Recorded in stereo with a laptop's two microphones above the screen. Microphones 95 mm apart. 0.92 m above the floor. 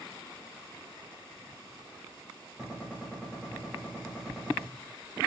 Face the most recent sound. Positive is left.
turn(degrees=-10)  # may be behind; listen again after turning